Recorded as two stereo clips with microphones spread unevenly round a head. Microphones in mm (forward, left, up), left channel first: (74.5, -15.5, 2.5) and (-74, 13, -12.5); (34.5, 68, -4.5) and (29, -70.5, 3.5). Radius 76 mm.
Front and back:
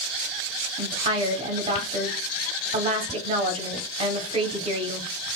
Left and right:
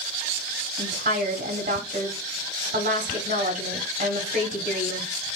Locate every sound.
0.8 s a woman speaking: 135° right, 1.2 m